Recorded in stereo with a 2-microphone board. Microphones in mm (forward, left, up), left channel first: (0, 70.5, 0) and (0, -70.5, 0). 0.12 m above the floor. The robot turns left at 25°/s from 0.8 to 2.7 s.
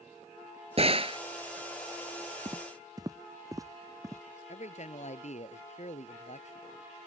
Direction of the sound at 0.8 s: 45° right (ahead or behind).